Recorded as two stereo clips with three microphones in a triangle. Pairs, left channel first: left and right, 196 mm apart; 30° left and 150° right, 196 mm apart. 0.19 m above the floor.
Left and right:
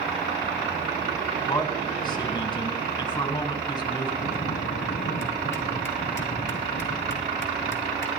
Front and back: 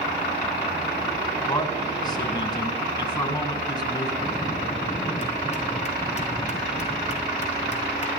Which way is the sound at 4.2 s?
80° left.